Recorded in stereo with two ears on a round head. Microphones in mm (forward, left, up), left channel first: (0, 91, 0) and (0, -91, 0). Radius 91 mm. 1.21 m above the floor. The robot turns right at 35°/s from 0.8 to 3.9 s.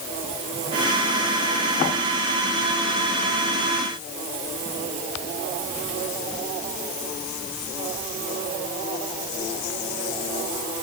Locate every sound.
Only background noise.